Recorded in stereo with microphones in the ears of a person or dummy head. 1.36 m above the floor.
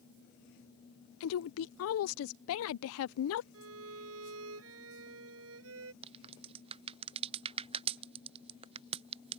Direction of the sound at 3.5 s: 75° right (ahead or behind).